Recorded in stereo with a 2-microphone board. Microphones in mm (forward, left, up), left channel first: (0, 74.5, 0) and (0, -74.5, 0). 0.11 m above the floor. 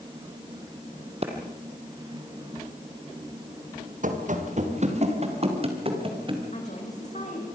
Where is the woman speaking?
45° left (ahead or behind), 7.5 m.